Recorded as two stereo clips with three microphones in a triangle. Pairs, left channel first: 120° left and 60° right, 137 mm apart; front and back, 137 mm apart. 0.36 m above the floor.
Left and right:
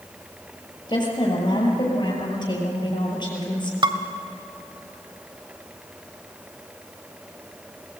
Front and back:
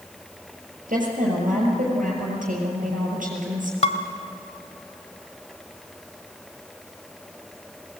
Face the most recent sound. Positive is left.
turn(degrees=-15)